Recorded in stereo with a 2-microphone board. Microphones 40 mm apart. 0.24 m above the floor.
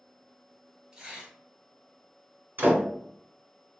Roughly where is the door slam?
Right.